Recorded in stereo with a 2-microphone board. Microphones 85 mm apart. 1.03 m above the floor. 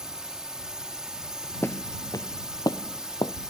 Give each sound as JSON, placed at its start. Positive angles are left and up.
{"t": 0.0, "sound": "a drone", "side_deg": -5}
{"t": 1.6, "sound": "footsteps", "side_deg": 30}